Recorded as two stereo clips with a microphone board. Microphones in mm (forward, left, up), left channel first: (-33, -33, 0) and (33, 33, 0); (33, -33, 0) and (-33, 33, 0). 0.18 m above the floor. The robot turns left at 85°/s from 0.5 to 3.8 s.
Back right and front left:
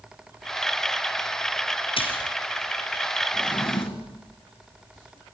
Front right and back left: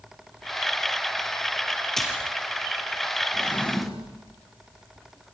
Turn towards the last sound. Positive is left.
turn(degrees=-135)